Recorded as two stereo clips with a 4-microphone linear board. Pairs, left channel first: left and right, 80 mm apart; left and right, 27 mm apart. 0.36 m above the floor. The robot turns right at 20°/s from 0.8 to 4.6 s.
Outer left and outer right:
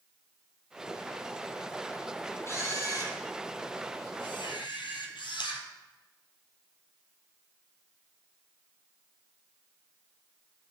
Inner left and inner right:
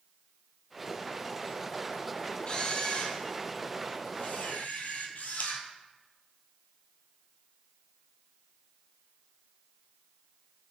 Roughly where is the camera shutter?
Ahead left.